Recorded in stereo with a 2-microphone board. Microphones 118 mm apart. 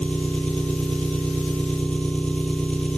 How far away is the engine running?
About 1.8 m.